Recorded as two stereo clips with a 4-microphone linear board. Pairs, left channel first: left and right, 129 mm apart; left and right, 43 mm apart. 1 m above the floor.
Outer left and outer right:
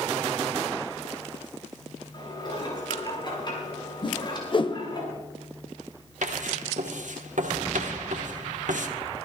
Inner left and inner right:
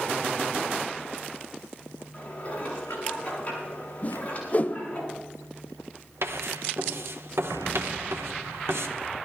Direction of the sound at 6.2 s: 75° right (ahead or behind).